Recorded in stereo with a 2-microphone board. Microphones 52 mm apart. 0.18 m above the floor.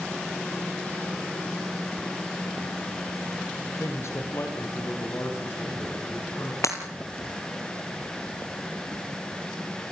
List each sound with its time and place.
3.8 s a man speaking: 65° left (ahead or behind), 4 m; by 6.5 s 50° left (ahead or behind), 8 m
6.6 s breaking glass: 75° left (ahead or behind), 2.5 m